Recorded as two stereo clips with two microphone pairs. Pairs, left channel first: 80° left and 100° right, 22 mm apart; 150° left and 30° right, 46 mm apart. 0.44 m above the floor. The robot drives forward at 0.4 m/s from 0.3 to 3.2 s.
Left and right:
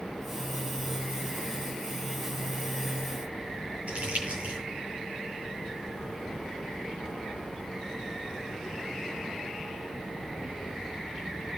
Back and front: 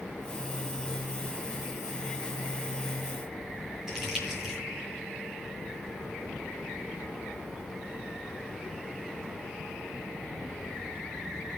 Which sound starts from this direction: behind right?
Crumpling, at 3.9 s.